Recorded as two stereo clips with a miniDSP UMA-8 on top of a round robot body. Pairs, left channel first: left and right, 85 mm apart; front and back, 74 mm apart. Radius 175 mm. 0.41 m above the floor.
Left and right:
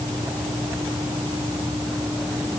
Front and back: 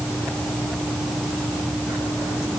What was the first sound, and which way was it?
Only background noise.